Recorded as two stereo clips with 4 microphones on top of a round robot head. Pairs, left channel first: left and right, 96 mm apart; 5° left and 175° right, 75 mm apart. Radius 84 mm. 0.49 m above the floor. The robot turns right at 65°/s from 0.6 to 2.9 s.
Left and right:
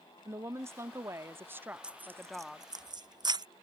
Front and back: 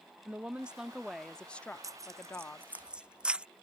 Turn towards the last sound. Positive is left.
turn(degrees=-100)